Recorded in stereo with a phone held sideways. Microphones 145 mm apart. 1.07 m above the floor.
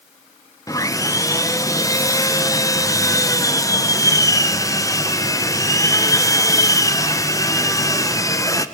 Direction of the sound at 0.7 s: 20° left (ahead or behind).